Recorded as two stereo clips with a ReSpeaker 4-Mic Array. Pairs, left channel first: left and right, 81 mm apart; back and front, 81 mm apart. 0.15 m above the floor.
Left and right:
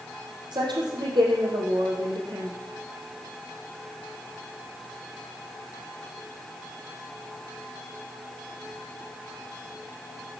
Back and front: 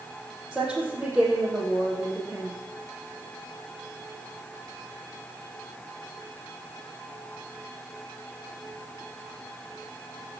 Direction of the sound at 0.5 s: 80° right.